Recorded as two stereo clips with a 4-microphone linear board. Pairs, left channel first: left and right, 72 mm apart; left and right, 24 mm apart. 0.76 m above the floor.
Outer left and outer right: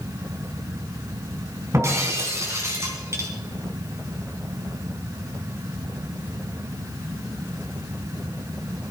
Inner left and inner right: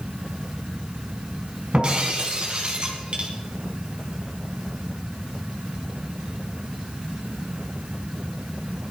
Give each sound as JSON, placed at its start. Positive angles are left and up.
{"t": 1.7, "sound": "breaking glass", "side_deg": -40, "distance_m": 3.5}